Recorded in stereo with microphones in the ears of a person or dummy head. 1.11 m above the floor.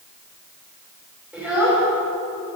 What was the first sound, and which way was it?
A child speaking, centre (ahead or behind).